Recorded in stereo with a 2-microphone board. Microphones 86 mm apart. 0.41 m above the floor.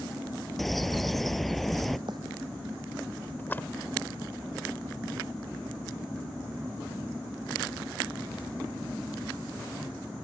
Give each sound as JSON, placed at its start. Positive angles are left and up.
{"t": 0.6, "sound": "a bird", "side_deg": 0}
{"t": 2.1, "sound": "a bird", "side_deg": -60}
{"t": 3.4, "sound": "a splash", "side_deg": 25}